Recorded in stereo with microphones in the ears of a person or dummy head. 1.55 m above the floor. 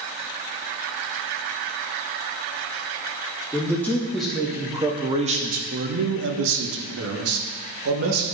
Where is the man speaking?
10° left (ahead or behind), 1.6 m; by 8.2 s 80° right, 2 m.